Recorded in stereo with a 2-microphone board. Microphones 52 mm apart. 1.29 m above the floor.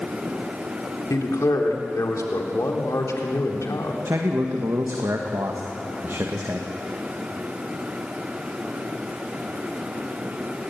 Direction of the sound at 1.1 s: 75° left (ahead or behind).